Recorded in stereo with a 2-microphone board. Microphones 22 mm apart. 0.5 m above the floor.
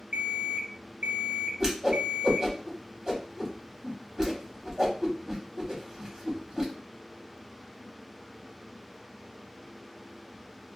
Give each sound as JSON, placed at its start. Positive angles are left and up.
{"t": 0.1, "sound": "an alarm clock", "side_deg": -55, "distance_m": 0.6}
{"t": 1.6, "sound": "a whoosh", "side_deg": -35, "distance_m": 0.9}